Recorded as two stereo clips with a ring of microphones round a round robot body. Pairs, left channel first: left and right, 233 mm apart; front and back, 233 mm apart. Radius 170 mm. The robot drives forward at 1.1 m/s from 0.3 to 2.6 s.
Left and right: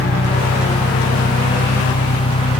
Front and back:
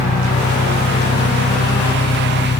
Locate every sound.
0.0 s an engine running: 45° left